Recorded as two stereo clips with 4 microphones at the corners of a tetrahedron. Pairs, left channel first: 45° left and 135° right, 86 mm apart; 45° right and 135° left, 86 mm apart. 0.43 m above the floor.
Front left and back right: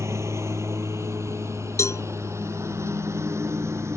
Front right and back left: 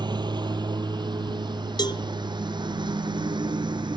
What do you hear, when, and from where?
0.0 s a lawn mower: 165° left
1.8 s a cowbell: 10° right